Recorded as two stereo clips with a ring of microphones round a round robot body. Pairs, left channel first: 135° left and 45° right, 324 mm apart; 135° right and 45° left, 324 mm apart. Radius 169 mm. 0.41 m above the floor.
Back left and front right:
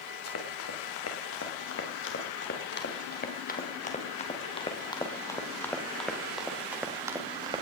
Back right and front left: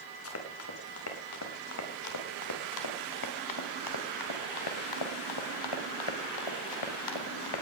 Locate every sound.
0.2 s running footsteps: straight behind, 5.5 m; by 7.6 s 120° right, 4 m